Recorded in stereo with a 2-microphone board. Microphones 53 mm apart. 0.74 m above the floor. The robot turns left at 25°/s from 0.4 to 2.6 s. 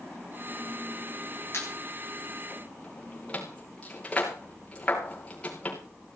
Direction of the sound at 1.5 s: 50° left (ahead or behind).